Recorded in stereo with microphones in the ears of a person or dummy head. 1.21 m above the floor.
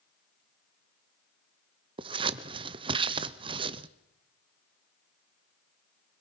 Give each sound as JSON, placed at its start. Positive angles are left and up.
{"t": 2.0, "sound": "scissors", "side_deg": -25, "distance_m": 0.6}